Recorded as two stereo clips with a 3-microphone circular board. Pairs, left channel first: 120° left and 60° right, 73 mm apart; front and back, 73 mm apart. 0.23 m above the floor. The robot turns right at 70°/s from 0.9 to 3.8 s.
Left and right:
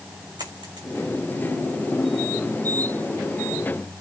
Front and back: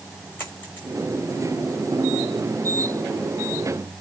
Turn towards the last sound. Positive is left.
turn(degrees=140)